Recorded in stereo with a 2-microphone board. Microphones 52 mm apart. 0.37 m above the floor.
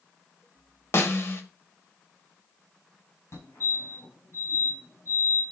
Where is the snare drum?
50° left (ahead or behind), 1.3 m.